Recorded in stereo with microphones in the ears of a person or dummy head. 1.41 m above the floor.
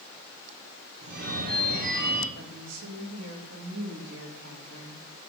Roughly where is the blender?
I don't hear a blender.